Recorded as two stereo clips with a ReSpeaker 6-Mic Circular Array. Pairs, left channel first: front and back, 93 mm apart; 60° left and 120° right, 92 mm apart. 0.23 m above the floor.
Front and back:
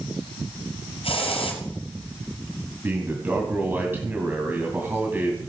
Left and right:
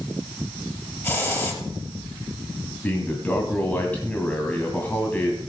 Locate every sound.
1.0 s a hiss: 5° right, 3.5 m
2.8 s a man speaking: 125° left, 1.9 m